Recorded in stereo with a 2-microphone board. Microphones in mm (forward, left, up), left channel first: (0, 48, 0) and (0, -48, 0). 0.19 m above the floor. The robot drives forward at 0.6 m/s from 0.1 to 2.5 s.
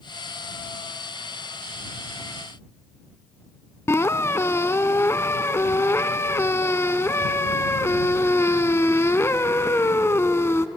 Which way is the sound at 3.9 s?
30° left (ahead or behind).